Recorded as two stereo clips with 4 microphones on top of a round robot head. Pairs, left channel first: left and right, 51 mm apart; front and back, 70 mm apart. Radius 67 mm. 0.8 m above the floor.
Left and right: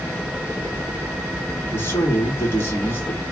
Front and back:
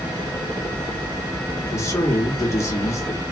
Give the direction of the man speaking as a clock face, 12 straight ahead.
10 o'clock.